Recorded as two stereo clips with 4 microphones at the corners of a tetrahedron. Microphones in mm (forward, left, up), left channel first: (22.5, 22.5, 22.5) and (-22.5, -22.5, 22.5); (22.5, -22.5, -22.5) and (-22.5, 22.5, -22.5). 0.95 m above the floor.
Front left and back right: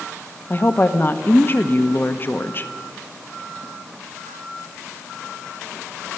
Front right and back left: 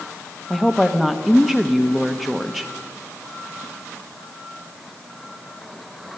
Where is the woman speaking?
50° left, 1.0 m.